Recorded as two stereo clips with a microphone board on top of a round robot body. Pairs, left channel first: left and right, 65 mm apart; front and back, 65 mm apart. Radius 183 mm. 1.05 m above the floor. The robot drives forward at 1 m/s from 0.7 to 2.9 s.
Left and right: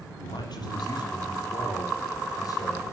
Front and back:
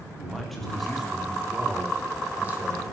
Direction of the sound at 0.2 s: 90° left.